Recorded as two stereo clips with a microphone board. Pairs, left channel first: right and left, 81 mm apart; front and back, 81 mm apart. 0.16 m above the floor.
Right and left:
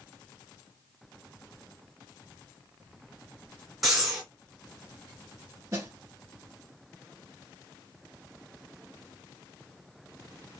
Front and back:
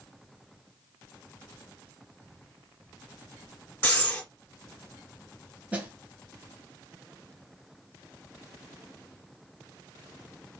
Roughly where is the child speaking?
No child speaking in this recording.